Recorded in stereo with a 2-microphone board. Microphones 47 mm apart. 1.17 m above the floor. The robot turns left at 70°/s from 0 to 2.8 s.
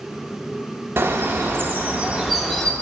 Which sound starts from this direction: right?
A bird, at 1.0 s.